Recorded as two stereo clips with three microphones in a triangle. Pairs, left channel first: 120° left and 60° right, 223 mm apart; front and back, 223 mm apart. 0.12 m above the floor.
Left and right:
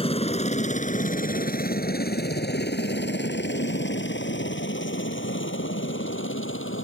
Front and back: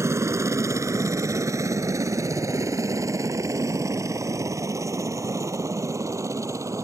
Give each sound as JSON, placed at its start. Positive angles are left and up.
{"t": 0.0, "sound": "a helicopter", "azimuth_deg": 120}